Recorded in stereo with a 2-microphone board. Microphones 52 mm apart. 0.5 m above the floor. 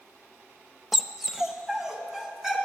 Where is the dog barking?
5° right (ahead or behind), 0.7 m; by 2.6 s 10° right (ahead or behind), 2.5 m.